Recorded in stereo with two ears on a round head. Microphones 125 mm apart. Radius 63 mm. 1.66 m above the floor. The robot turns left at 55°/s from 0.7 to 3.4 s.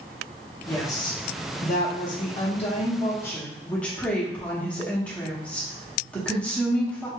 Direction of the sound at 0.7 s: 15° left (ahead or behind).